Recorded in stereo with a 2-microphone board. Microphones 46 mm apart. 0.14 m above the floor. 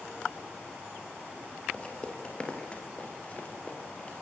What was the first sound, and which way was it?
Footsteps, 20° left (ahead or behind).